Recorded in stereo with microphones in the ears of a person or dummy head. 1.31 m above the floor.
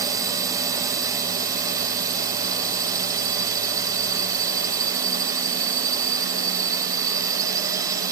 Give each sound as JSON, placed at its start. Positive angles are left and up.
{"t": 0.0, "sound": "a drone", "side_deg": -20}